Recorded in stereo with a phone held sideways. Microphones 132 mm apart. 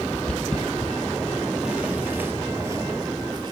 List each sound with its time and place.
0.1 s footsteps: 5° left (ahead or behind), 2 m; by 3.5 s 35° right (ahead or behind), 1.2 m